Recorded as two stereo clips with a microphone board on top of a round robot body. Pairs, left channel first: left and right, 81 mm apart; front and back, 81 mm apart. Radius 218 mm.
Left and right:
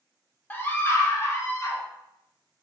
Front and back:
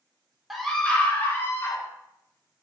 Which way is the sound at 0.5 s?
95° left.